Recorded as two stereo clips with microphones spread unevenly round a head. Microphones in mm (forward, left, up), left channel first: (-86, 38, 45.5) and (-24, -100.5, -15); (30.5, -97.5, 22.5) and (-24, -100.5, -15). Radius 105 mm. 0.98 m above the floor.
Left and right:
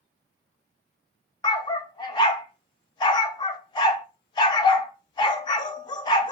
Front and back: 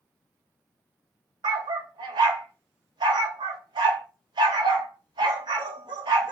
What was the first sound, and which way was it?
A dog barking, 150° left.